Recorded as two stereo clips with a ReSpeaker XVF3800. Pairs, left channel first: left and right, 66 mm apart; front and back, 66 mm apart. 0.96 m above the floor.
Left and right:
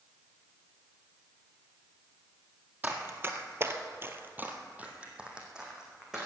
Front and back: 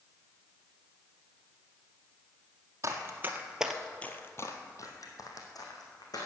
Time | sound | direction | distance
2.8 | running footsteps | 150° right | 1.8 m